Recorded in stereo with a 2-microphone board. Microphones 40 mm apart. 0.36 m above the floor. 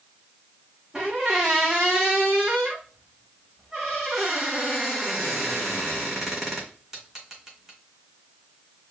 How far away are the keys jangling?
No keys jangling in this recording.